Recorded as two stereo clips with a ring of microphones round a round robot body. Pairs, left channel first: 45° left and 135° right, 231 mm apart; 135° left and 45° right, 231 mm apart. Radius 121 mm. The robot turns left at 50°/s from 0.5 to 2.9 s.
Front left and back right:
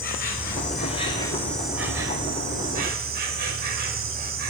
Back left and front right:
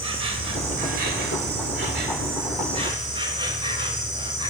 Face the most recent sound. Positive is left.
turn(degrees=-110)